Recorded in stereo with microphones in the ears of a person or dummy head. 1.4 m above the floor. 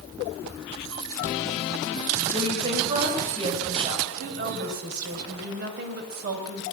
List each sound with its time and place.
2.3 s a woman speaking: 30° right (ahead or behind), 6.5 m
4.1 s a woman speaking: 55° right (ahead or behind), 6 m